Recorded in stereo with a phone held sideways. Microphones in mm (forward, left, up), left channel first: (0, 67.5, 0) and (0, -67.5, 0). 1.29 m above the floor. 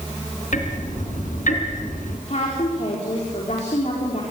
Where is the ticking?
70° left (ahead or behind), 3 m.